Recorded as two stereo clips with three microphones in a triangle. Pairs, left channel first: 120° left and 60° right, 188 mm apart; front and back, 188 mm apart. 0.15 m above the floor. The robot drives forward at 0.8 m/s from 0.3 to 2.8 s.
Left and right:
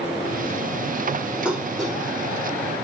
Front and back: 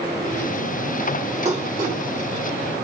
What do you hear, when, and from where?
1.4 s dishes clattering: 140° right, 1.2 m; by 2.0 s 155° right, 1.5 m